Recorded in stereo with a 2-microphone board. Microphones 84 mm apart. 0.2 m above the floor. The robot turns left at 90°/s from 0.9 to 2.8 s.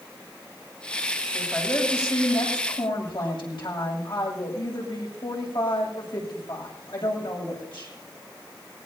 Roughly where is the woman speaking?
Behind right.